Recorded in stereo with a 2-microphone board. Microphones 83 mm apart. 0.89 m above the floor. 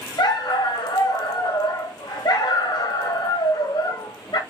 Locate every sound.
0.2 s a dog barking: 55° left (ahead or behind), 0.9 m